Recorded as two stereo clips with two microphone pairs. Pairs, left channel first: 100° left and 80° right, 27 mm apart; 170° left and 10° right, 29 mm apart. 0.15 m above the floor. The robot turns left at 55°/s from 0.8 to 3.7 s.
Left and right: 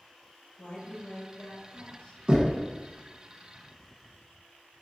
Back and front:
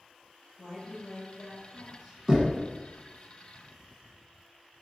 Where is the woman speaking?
130° left, 1.9 m; by 2.2 s 55° left, 1.9 m.